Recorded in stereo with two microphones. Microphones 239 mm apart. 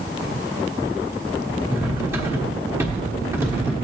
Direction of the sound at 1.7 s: 10° right (ahead or behind).